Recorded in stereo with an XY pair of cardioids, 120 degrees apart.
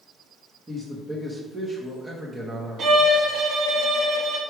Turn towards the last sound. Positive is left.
turn(degrees=-50)